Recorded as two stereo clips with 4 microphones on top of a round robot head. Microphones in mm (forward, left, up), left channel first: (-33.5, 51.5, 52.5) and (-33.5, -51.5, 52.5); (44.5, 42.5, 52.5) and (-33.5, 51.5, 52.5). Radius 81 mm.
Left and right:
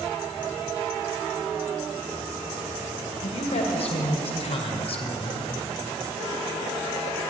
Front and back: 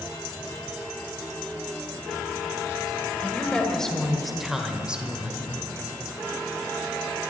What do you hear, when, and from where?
3.2 s a woman speaking: 70° left, 2 m; by 5.5 s 110° left, 1.9 m